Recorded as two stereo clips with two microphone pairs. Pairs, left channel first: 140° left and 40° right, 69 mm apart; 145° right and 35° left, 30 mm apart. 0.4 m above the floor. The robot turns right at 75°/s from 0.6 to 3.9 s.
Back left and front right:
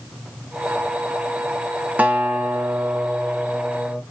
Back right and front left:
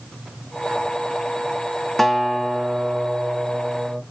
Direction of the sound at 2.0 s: 70° right.